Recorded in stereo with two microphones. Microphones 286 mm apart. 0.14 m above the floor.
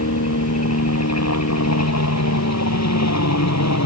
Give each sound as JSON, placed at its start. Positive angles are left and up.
{"t": 0.0, "sound": "a helicopter", "side_deg": 60}